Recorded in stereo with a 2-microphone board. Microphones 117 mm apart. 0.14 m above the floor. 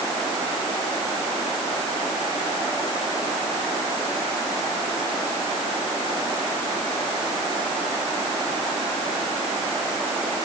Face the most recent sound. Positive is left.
No sound to turn to.